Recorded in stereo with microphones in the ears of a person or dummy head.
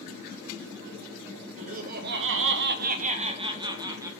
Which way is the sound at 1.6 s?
40° right (ahead or behind).